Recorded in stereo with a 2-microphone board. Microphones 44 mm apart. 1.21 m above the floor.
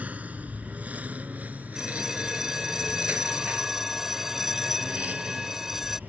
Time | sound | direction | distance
0.0 | a lawn mower | 30° right (ahead or behind) | ?
1.8 | a bell | 10° right (ahead or behind) | ?